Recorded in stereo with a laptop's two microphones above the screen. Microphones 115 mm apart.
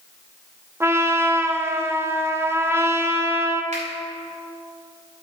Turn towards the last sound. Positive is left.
turn(degrees=-85)